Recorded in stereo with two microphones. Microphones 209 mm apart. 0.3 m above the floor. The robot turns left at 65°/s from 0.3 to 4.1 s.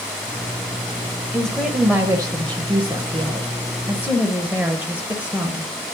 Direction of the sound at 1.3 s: 5° left (ahead or behind).